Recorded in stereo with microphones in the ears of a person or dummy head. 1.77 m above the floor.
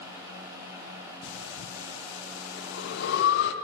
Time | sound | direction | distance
1.2 | breathing | 70° left (ahead or behind) | 0.7 m